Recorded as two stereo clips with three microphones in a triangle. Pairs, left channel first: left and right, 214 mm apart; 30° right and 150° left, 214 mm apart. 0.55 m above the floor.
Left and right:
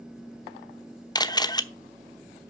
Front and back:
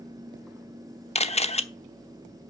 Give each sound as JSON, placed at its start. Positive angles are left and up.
{"t": 1.1, "sound": "a camera shutter", "azimuth_deg": 20, "distance_m": 0.8}